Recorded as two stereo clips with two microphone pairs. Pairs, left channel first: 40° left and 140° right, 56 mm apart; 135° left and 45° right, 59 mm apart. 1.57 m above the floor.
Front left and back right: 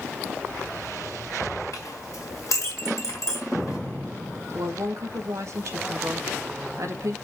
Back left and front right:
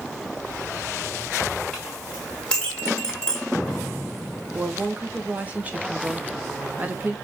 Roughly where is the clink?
Ahead left.